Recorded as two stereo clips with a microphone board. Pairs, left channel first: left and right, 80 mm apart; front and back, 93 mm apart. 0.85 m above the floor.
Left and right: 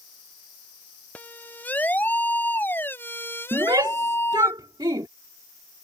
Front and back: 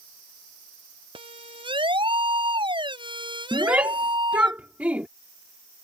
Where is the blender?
I don't hear a blender.